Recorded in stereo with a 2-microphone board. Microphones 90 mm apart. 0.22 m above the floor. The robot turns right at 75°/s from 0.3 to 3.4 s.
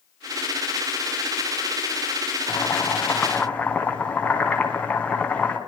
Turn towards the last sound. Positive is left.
turn(degrees=160)